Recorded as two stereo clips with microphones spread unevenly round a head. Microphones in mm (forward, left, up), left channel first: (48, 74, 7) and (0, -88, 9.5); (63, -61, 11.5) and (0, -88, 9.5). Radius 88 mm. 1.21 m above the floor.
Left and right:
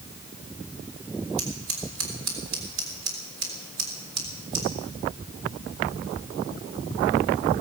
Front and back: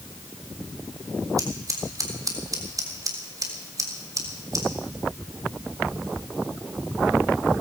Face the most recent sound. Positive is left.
turn(degrees=-120)